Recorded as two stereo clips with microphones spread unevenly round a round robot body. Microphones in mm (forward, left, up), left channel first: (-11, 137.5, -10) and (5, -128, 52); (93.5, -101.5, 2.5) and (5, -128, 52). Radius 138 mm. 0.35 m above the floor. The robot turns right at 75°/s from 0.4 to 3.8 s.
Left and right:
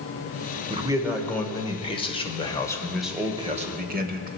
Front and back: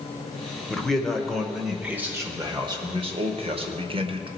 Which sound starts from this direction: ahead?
A man speaking, at 0.7 s.